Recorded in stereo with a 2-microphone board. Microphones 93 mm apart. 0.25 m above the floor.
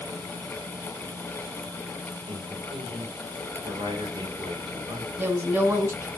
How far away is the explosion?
No explosion in this recording.